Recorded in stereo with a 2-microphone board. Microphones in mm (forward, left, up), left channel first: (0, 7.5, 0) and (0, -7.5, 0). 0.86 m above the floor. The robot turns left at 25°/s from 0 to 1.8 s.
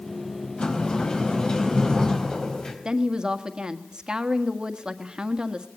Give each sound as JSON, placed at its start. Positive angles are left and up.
{"t": 0.6, "sound": "a sliding door", "azimuth_deg": 95, "distance_m": 4.0}
{"t": 2.9, "sound": "a woman speaking", "side_deg": -55, "distance_m": 1.5}